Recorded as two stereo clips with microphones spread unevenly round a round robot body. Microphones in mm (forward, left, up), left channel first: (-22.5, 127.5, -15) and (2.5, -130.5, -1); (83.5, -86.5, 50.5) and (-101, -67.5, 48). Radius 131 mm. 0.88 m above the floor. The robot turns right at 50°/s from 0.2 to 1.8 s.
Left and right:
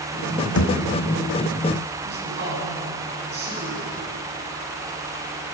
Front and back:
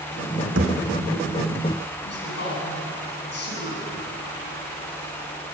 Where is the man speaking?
30° right, 9.5 m.